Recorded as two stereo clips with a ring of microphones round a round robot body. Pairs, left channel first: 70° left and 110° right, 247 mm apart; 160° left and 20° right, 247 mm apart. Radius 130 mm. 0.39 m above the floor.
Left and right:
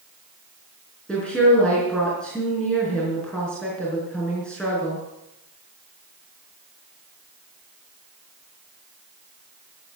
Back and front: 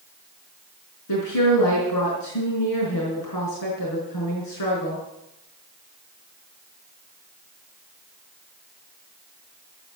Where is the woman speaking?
155° left, 5 m.